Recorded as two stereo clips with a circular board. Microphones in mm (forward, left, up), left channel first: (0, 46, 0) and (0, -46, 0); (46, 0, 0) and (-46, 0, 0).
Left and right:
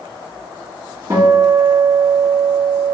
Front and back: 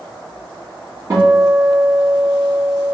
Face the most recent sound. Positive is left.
turn(degrees=-135)